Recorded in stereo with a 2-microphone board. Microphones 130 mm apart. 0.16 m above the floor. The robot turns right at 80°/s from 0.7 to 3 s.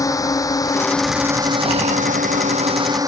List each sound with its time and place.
0.0 s a drone: 25° left (ahead or behind); by 3.1 s 25° right (ahead or behind)